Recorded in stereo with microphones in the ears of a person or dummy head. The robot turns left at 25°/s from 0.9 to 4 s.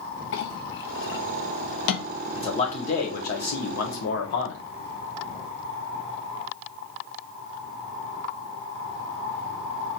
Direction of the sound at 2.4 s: 160° left.